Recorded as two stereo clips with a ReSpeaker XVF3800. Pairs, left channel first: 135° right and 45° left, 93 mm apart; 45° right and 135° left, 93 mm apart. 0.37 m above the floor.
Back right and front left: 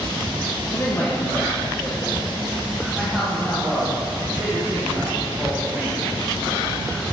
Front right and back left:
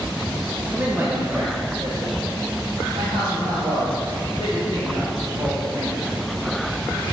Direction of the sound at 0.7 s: 160° right.